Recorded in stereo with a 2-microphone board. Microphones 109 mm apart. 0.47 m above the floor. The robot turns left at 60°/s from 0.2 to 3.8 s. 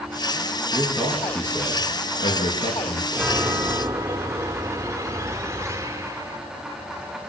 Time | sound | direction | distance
0.7 | a man speaking | 155° right | 6.5 m
3.1 | a chime | 5° right | 1.5 m